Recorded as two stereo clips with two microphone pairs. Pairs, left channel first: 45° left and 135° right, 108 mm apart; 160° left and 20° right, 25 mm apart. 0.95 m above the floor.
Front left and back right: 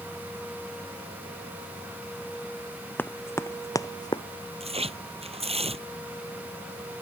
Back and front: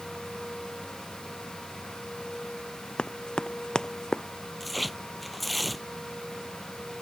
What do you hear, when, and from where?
3.0 s running footsteps: 115° left; by 4.2 s 95° left
4.6 s tearing paper: 110° right